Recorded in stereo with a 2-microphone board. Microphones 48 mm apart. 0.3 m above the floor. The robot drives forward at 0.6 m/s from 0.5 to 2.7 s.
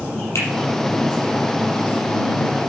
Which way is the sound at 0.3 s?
70° left (ahead or behind).